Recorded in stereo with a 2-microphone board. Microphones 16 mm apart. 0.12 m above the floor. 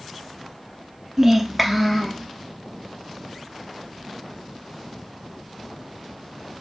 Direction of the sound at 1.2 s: 20° right (ahead or behind).